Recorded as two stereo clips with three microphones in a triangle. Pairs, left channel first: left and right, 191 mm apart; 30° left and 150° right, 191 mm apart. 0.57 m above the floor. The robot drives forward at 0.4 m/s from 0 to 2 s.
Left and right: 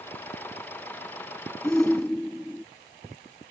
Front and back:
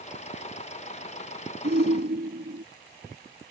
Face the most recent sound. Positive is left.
turn(degrees=175)